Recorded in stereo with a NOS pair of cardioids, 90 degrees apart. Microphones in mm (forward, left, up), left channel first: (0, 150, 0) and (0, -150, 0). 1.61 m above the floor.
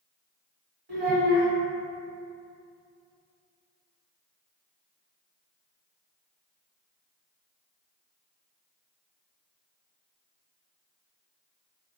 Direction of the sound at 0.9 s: 40° right.